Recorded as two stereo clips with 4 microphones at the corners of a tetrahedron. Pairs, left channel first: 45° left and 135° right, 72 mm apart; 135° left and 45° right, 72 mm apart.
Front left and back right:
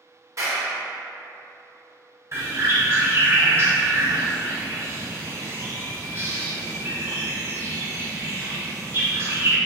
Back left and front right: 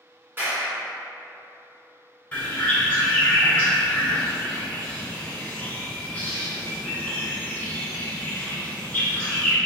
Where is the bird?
165° right, 1.1 m.